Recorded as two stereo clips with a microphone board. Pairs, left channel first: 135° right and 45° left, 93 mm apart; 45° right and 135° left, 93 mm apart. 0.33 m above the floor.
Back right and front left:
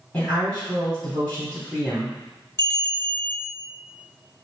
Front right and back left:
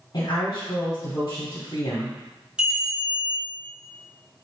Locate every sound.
0.1 s a woman speaking: 60° right, 2.0 m
2.6 s a bell: 155° right, 1.1 m